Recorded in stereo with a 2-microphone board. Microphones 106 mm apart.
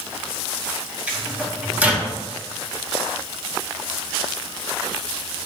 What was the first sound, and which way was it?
A microwave, 10° right (ahead or behind).